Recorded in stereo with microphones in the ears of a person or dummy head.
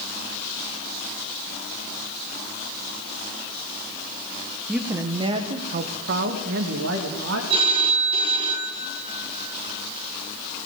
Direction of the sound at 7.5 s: 35° right (ahead or behind).